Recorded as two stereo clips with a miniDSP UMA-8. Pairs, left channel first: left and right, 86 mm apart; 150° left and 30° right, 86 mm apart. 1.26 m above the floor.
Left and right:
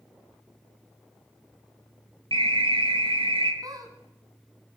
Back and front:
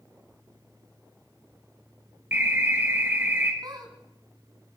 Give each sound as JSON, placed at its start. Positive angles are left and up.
{"t": 2.3, "sound": "an alarm", "azimuth_deg": -95, "distance_m": 2.0}
{"t": 3.6, "sound": "a squeak", "azimuth_deg": -55, "distance_m": 2.0}